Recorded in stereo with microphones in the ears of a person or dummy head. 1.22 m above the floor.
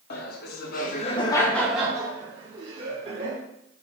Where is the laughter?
50° left (ahead or behind), 0.8 m; by 3.4 s 40° right (ahead or behind), 1.2 m.